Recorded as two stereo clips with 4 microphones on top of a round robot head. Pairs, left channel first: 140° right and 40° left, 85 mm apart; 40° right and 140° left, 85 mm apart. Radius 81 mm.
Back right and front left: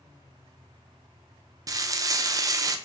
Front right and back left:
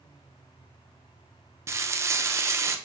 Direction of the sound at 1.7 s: 85° left.